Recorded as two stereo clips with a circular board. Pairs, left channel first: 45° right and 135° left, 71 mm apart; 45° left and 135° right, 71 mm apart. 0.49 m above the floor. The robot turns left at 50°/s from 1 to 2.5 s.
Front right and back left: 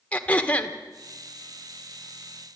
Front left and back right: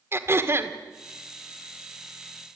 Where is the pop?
No pop in this recording.